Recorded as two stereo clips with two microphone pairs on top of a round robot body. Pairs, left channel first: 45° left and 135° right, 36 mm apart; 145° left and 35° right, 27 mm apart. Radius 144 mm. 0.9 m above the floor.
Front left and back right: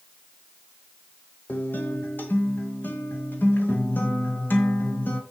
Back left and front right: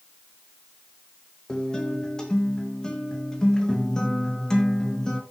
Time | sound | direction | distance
1.5 | a guitar | 75° left | 1.6 m